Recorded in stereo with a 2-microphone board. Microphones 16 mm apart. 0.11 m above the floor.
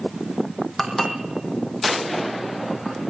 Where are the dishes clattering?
5° left (ahead or behind), 3.5 m.